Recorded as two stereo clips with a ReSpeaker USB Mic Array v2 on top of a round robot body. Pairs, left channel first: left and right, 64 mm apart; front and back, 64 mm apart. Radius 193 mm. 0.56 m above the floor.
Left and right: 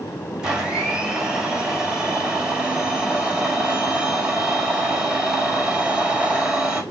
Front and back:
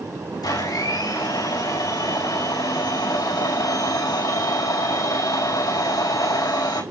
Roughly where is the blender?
Ahead.